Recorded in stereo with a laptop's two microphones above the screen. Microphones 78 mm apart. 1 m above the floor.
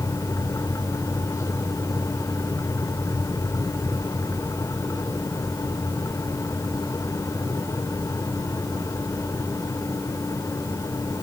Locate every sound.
0.0 s a fan: 40° left (ahead or behind), 1.7 m